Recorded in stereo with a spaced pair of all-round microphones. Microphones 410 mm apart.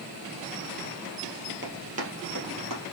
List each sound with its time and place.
1.6 s running footsteps: 25° right (ahead or behind), 1.9 m; by 2.8 s 50° right (ahead or behind), 2 m